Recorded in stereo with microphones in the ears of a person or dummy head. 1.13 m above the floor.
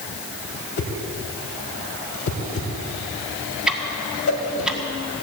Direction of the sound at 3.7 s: 5° right (ahead or behind).